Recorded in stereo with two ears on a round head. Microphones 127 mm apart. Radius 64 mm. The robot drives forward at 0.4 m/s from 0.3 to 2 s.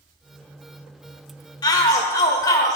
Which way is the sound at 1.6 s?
30° left (ahead or behind).